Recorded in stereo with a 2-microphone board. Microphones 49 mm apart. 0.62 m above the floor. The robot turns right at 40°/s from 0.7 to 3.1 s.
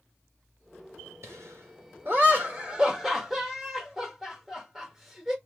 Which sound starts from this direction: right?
Laughter, at 1.2 s.